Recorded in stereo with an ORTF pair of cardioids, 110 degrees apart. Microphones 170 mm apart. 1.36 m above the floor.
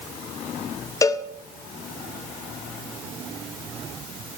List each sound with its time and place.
1.0 s a cowbell: 20° left, 0.6 m